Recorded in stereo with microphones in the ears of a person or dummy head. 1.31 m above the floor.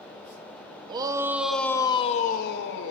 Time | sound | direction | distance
0.9 | a shout | 25° right (ahead or behind) | 0.8 m